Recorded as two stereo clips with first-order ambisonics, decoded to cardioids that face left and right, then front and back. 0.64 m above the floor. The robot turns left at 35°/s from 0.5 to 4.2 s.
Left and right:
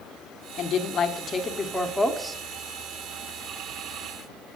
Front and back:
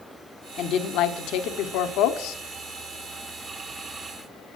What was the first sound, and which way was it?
A woman speaking, 50° left.